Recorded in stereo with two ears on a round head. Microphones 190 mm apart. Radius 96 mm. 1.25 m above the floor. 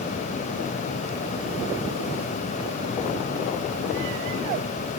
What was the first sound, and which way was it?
Only background noise.